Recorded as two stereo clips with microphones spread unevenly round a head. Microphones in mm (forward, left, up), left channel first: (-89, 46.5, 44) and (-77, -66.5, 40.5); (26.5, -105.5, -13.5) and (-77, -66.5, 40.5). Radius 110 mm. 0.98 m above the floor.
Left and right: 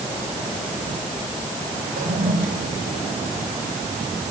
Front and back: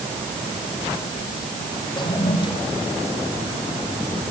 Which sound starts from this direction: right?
A toilet flushing, at 2.0 s.